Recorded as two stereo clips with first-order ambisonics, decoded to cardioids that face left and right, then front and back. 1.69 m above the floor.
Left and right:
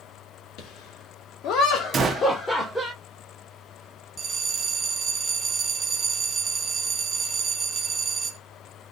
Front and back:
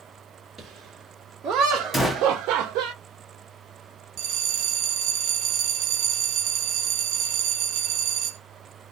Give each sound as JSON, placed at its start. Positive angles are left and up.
{"t": 0.6, "sound": "laughter", "azimuth_deg": 100, "distance_m": 1.1}
{"t": 1.9, "sound": "a gunshot", "azimuth_deg": -80, "distance_m": 0.6}
{"t": 4.2, "sound": "a bell", "azimuth_deg": -160, "distance_m": 0.5}